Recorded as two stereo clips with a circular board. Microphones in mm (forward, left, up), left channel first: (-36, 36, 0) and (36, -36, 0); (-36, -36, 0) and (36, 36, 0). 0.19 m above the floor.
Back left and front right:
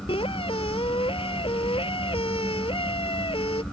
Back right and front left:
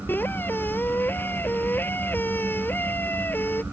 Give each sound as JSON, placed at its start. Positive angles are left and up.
{"t": 0.1, "sound": "a squeak", "azimuth_deg": 155}